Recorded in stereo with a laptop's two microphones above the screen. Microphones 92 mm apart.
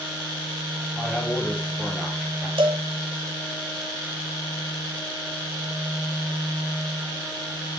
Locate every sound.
0.9 s a man speaking: 10° left (ahead or behind), 5 m; by 2.5 s centre (ahead or behind), 5 m
2.6 s a cowbell: 75° right (ahead or behind), 1.6 m